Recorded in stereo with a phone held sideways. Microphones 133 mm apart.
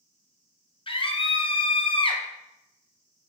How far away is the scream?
About 0.8 m.